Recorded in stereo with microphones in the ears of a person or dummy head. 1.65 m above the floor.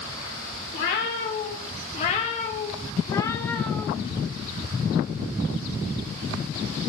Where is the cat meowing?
55° left (ahead or behind), 2 m; by 3.9 s centre (ahead or behind), 1.2 m.